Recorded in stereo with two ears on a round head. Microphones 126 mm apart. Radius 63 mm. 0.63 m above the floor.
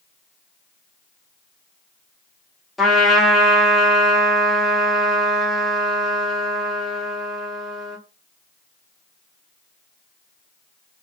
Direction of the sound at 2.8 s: Centre (ahead or behind).